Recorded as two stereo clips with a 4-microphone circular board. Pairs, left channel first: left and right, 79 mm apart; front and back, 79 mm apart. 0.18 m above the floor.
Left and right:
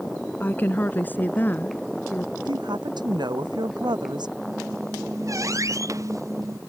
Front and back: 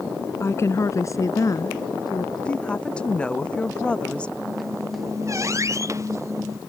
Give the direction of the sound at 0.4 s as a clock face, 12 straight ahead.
11 o'clock.